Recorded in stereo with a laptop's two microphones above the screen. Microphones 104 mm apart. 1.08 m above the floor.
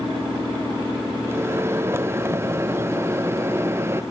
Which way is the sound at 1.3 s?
25° right (ahead or behind).